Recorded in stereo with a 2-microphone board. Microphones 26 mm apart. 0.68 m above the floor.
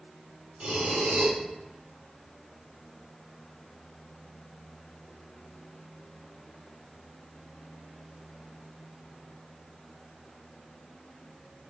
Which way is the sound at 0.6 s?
70° right (ahead or behind).